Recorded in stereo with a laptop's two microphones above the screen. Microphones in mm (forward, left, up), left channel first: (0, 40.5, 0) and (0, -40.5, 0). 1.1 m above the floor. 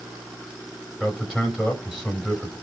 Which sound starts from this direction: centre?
A man speaking, at 1.0 s.